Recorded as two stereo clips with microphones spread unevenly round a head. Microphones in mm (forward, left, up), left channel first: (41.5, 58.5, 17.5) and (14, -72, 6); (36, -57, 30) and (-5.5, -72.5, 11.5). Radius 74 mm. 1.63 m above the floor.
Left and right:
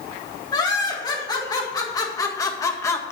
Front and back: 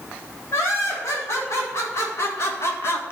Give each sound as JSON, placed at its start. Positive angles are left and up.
{"t": 0.5, "sound": "laughter", "azimuth_deg": 20, "distance_m": 3.5}